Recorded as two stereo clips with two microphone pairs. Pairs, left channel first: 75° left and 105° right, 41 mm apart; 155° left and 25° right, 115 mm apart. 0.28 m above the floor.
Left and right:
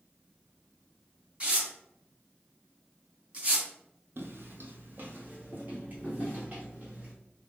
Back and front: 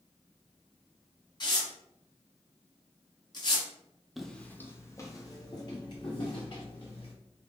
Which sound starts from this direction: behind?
Tearing paper, at 1.4 s.